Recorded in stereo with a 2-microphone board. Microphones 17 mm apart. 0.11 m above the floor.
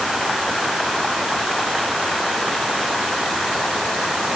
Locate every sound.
Only background noise.